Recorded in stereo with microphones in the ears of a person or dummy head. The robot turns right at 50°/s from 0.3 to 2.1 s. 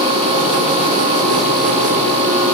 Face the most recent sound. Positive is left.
No sound to turn to.